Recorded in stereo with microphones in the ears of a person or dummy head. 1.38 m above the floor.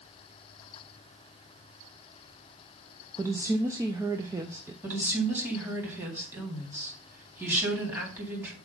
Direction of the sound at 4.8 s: 10° right (ahead or behind).